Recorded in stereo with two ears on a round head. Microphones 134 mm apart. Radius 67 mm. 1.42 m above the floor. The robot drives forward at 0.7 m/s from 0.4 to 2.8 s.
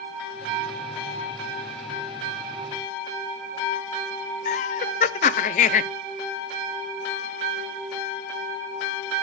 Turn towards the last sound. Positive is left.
turn(degrees=50)  # may be behind; listen again after turning